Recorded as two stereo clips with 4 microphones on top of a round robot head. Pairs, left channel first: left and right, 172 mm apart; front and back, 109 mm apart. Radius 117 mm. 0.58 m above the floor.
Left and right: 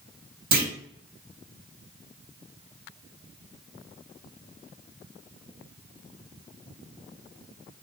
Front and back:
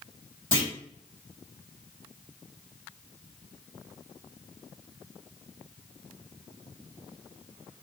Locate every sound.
0.5 s a clunk: 70° right, 2 m